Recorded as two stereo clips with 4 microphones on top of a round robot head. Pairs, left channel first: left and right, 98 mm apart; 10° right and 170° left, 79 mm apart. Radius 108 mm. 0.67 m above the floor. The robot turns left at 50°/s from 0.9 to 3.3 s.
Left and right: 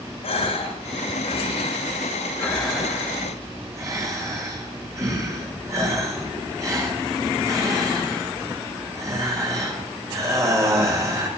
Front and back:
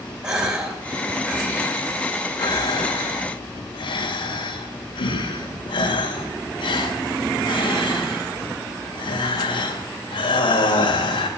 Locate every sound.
0.2 s a gasp: 90° left, 3 m; by 11.3 s 30° right, 3 m